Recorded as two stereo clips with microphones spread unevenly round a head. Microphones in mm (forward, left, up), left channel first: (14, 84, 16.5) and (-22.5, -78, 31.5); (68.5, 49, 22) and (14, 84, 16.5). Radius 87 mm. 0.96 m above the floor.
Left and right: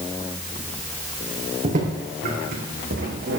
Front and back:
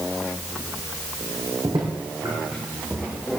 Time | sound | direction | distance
1.6 | footsteps | 150° right | 3.5 m